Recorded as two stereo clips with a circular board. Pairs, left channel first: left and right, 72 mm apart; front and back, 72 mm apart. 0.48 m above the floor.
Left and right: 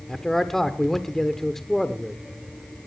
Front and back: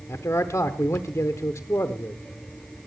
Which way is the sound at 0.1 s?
10° left.